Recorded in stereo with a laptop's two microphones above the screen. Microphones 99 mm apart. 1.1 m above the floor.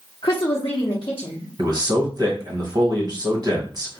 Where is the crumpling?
No crumpling in this recording.